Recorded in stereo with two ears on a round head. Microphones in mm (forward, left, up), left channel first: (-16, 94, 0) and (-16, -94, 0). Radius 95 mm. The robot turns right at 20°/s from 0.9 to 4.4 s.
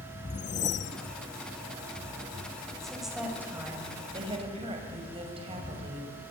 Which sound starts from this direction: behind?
A woman speaking, at 2.8 s.